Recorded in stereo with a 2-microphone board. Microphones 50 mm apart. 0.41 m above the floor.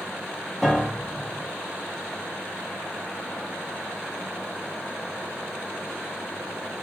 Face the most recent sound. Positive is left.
turn(degrees=0)  # may be behind; listen again after turning